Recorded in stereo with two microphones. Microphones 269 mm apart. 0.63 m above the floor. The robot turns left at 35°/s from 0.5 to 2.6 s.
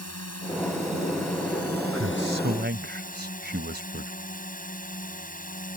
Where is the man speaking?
60° right (ahead or behind); by 4.1 s 40° right (ahead or behind).